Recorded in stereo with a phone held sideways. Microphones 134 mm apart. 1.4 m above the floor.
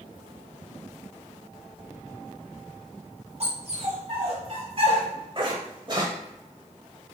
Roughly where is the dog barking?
Right.